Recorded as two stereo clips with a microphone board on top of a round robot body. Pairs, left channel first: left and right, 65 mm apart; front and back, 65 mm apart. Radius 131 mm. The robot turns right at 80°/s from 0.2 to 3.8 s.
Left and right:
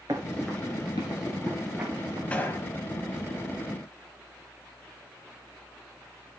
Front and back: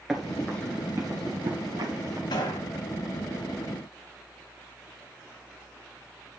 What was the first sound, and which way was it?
Running footsteps, 95° right.